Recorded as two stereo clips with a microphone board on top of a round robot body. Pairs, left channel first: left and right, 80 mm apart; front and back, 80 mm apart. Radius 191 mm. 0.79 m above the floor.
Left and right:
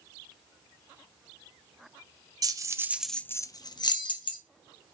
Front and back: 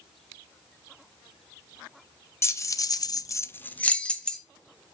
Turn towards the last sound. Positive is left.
turn(degrees=85)